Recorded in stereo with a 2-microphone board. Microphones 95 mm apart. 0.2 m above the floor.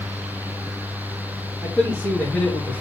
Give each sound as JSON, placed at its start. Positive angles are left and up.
{"t": 1.6, "sound": "a man speaking", "side_deg": 5, "distance_m": 4.5}